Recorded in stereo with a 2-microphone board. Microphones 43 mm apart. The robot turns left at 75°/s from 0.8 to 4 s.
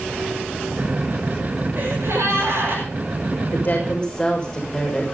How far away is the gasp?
About 9 m.